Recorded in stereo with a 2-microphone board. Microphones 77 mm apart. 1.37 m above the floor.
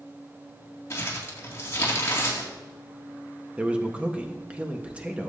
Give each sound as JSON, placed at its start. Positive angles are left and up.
{"t": 0.9, "sound": "crumpling", "side_deg": 35, "distance_m": 2.5}
{"t": 3.6, "sound": "a man speaking", "side_deg": -15, "distance_m": 1.3}